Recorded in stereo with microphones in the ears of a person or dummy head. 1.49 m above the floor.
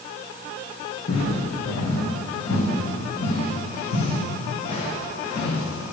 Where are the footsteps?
55° left (ahead or behind), 4 m; by 5.9 s 30° left (ahead or behind), 6 m.